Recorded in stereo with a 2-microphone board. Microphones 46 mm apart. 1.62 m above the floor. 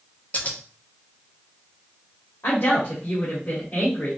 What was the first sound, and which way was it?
Scissors, 35° left (ahead or behind).